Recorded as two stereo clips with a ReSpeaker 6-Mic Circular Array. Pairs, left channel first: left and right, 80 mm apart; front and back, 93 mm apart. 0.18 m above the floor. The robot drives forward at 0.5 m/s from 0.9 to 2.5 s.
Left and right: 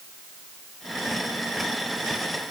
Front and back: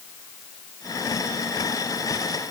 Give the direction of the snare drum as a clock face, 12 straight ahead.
No snare drum in this recording.